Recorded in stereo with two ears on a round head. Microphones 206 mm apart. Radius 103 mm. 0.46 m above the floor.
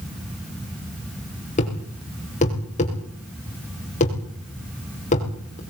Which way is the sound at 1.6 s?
30° left (ahead or behind).